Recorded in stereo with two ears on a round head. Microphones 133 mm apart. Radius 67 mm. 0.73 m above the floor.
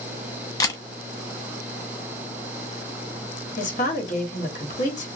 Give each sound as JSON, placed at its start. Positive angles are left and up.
{"t": 0.6, "sound": "a camera shutter", "side_deg": 25, "distance_m": 0.6}
{"t": 3.6, "sound": "a woman speaking", "side_deg": 55, "distance_m": 1.3}